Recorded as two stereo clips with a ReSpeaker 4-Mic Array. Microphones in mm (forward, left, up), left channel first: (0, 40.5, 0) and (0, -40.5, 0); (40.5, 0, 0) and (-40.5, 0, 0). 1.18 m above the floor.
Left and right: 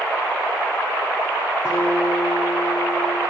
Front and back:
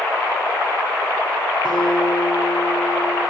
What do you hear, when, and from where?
1.6 s a guitar: 15° right, 8 m